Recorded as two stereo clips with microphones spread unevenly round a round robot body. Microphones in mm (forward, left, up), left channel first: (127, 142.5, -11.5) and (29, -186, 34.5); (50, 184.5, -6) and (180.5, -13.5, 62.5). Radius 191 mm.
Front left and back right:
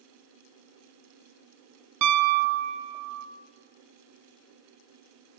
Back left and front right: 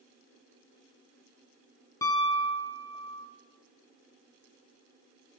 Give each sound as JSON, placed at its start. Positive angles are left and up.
{"t": 2.0, "sound": "a piano", "azimuth_deg": -155, "distance_m": 1.0}